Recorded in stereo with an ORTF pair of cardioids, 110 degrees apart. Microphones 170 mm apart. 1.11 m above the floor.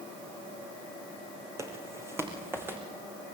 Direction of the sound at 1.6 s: 15° right.